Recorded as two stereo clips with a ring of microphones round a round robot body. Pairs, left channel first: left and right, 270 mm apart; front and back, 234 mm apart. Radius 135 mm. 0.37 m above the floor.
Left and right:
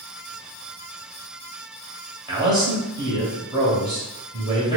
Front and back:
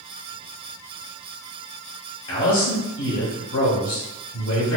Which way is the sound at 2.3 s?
20° right.